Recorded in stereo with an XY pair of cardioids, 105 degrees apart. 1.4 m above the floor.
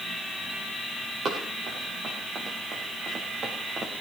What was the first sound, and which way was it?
Running footsteps, 50° right.